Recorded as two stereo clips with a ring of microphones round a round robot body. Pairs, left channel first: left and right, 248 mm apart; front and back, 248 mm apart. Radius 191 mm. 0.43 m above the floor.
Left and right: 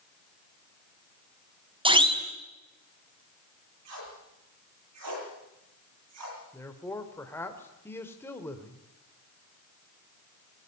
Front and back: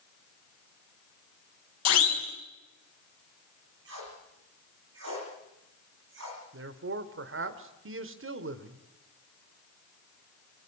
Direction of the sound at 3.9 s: 125° right.